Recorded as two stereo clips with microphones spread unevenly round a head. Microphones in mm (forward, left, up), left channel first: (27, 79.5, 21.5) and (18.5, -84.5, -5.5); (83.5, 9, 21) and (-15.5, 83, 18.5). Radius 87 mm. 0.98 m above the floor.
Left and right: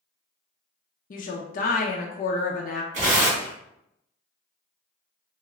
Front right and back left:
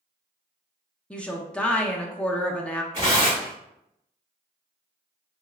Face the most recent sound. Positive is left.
turn(degrees=-145)